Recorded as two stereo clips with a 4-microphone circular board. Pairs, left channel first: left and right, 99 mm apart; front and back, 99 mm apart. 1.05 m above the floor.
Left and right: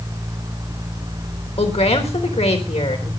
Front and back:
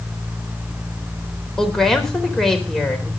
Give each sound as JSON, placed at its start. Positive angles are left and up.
{"t": 1.6, "sound": "a woman speaking", "azimuth_deg": 85, "distance_m": 4.0}